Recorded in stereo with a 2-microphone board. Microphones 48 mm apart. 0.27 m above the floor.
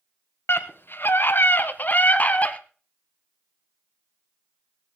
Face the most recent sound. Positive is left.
turn(degrees=30)  # may be behind; listen again after turning